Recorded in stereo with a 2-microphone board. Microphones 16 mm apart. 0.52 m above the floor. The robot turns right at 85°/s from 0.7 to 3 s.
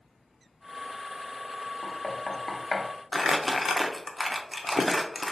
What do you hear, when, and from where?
1.8 s knocking: 10° left (ahead or behind), 0.6 m; by 2.9 s 20° left (ahead or behind), 0.6 m
3.1 s crumpling: centre (ahead or behind), 0.5 m